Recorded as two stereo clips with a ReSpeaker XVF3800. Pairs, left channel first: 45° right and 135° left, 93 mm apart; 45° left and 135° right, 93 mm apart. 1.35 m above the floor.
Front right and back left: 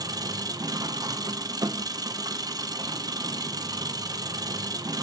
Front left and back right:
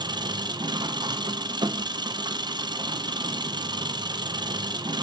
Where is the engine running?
175° right, 0.8 m.